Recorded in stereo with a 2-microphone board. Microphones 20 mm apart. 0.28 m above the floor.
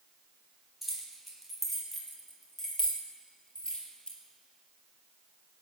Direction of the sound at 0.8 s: 10° right (ahead or behind).